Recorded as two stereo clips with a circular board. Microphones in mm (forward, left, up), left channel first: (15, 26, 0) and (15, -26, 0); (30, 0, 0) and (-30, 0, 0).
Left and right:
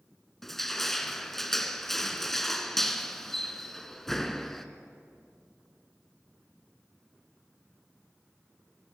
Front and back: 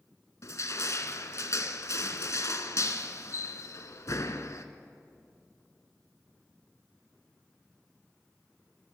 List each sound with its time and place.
0.4 s crushing: 10° left, 1.1 m